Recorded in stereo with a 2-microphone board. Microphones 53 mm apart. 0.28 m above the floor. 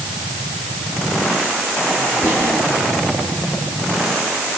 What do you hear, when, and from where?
2.2 s whispering: 40° left (ahead or behind), 5 m